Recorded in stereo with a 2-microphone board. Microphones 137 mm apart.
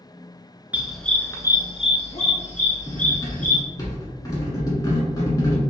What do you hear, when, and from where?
0.7 s a dog barking: 10° right (ahead or behind), 0.5 m; by 3.6 s 70° left (ahead or behind), 1.4 m
2.9 s cutlery clinking: 25° left (ahead or behind), 0.9 m